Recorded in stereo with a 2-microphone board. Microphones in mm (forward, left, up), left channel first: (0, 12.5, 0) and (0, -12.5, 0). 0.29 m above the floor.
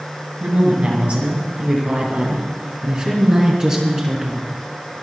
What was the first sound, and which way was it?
A woman speaking, 60° right (ahead or behind).